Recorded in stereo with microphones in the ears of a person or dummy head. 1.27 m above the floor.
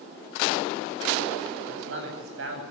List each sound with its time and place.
1.7 s a man speaking: 90° right, 8.5 m